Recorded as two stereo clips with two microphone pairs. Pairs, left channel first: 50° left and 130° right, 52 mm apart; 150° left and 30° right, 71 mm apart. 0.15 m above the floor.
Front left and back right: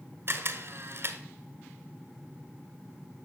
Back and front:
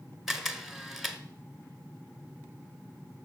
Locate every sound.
0.3 s a camera shutter: 115° right, 1.4 m